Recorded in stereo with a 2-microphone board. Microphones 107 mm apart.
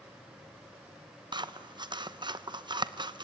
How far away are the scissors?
About 0.9 m.